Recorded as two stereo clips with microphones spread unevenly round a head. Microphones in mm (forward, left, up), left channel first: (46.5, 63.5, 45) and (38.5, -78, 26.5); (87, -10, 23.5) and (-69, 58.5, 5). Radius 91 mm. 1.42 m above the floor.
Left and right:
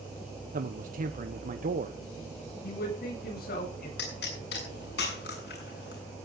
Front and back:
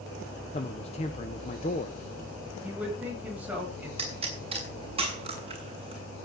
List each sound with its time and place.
0.5 s a man speaking: 80° right, 1.1 m
2.6 s a man speaking: 75° left, 9 m
4.0 s a pop: 100° left, 6.5 m